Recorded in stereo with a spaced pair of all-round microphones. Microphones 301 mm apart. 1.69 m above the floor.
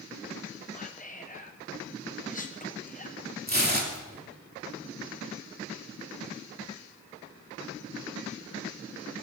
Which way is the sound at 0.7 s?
25° left (ahead or behind).